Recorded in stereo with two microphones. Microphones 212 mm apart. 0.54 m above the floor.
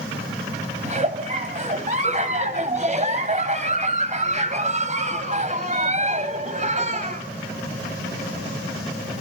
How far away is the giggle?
About 2.5 m.